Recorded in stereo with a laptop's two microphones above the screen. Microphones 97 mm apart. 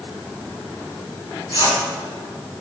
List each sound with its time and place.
1.5 s a whoosh: 70° left (ahead or behind), 5 m